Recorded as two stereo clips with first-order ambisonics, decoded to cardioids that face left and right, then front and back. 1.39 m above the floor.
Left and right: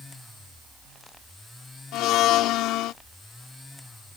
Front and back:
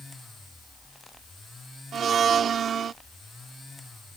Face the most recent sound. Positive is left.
turn(degrees=120)